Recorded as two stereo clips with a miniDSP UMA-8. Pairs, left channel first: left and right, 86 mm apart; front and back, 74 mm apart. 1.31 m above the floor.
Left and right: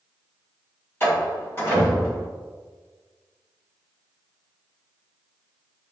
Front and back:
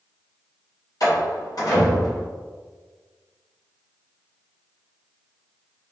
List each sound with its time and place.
1.0 s a door slam: 30° left, 1.4 m